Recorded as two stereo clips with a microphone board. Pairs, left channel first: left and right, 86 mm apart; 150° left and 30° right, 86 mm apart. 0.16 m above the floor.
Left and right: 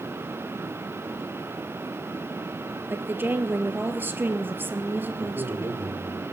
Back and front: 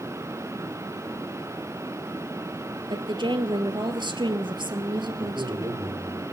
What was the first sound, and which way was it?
A woman speaking, 25° right.